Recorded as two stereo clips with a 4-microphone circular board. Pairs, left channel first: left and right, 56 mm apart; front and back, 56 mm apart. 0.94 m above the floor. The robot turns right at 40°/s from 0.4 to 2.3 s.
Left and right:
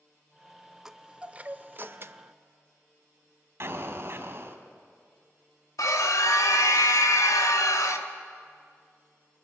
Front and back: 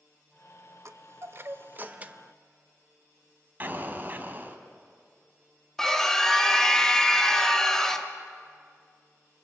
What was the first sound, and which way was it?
A chime, 170° right.